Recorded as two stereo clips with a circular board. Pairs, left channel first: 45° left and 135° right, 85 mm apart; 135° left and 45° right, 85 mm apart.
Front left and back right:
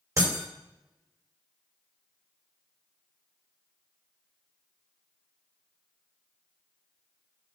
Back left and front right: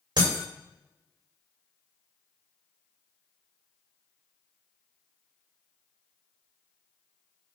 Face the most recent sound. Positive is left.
turn(degrees=-85)